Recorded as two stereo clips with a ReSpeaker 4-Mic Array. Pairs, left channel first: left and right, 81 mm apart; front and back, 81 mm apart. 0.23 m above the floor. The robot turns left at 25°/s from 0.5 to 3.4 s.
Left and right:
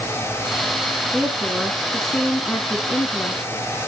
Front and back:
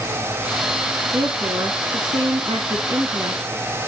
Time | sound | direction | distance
1.1 | a woman speaking | 160° right | 2.5 m